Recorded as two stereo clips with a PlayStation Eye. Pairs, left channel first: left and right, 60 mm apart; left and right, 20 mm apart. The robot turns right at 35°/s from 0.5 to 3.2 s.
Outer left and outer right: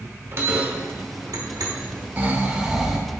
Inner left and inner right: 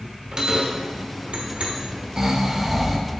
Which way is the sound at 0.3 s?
40° right (ahead or behind).